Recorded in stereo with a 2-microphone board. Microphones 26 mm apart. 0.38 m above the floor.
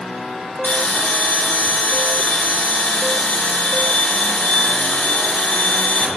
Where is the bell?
65° left (ahead or behind), 2.0 m.